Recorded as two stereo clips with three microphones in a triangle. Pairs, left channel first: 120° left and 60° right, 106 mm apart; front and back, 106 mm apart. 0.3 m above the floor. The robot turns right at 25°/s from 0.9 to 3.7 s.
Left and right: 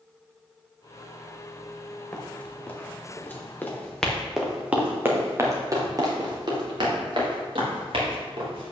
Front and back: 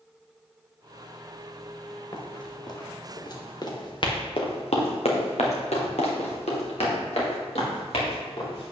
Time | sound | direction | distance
2.1 | running footsteps | 40° left | 3 m